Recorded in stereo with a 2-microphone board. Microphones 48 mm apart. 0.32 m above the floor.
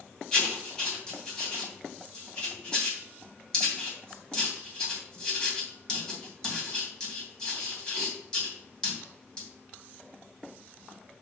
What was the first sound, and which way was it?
Writing, 15° left (ahead or behind).